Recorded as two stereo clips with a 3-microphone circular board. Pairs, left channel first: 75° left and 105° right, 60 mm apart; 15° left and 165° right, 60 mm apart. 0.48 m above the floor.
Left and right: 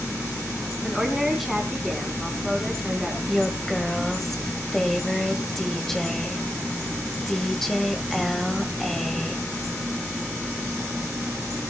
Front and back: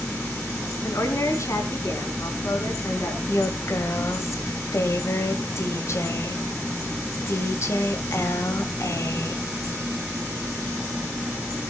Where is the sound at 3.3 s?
10° right, 2.5 m.